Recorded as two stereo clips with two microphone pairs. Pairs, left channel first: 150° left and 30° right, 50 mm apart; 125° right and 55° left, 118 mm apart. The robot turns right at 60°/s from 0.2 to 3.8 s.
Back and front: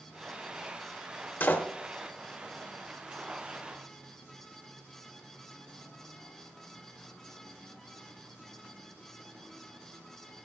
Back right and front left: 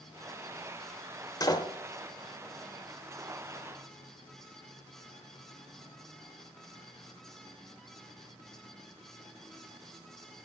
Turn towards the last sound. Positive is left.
turn(degrees=-30)